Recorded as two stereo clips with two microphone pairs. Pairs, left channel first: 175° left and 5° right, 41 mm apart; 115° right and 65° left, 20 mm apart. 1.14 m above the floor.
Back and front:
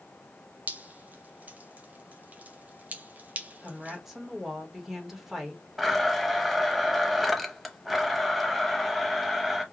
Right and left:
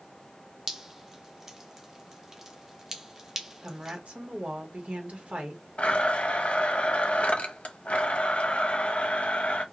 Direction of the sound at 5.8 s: 95° right.